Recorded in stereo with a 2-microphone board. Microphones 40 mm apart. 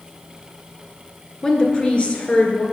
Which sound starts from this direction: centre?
A woman speaking, at 1.4 s.